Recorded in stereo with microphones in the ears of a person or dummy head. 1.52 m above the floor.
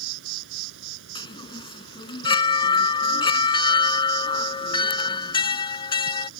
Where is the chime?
30° left (ahead or behind).